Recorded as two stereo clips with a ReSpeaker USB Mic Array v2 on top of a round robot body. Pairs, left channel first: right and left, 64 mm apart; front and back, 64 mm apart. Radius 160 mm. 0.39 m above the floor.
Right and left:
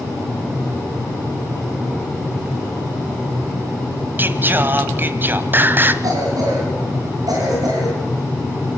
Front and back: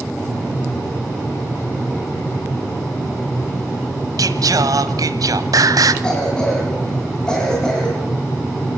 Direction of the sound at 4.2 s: 150° left.